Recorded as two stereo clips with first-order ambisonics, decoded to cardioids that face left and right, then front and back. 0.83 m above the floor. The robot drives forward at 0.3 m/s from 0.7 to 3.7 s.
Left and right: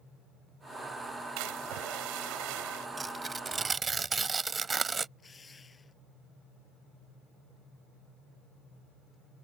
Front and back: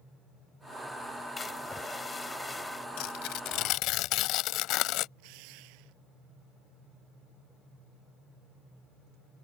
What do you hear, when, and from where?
1.4 s a splash: 75° right; by 2.9 s 80° right
3.0 s tearing paper: 15° right; by 5.1 s 20° right
5.2 s a drill: 165° left